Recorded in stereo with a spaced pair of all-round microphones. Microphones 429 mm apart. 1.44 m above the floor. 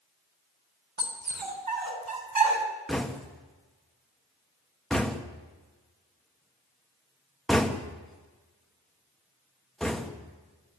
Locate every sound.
1.0 s a dog barking: 75° right (ahead or behind), 4 m; by 2.6 s 70° right (ahead or behind), 3.5 m
2.9 s knocking: centre (ahead or behind), 1.7 m